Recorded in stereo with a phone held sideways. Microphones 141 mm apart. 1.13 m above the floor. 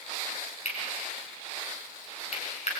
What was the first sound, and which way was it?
Cutlery clinking, 50° left (ahead or behind).